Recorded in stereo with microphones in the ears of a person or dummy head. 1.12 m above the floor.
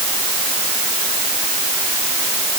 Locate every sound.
Only background noise.